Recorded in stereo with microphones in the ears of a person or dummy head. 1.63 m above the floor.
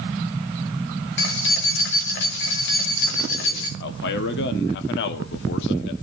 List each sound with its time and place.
1.2 s keys jangling: 60° left (ahead or behind), 2 m
3.8 s a man speaking: 60° left (ahead or behind), 1.2 m